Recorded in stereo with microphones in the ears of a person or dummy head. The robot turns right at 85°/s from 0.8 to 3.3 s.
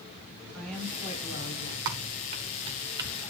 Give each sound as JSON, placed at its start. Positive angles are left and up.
{"t": 0.5, "sound": "a woman speaking", "azimuth_deg": 5, "distance_m": 7.5}
{"t": 1.9, "sound": "typing on a keyboard", "side_deg": -20, "distance_m": 1.0}